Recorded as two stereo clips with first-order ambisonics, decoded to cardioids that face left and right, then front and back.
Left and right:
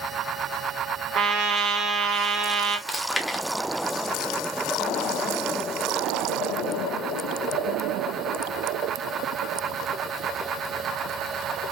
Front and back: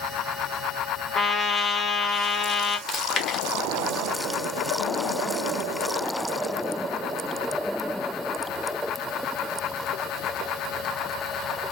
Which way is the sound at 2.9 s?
25° left.